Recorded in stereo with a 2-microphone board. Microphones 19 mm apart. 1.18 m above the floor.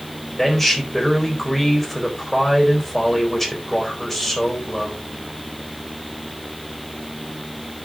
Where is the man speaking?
20° left (ahead or behind), 4 m.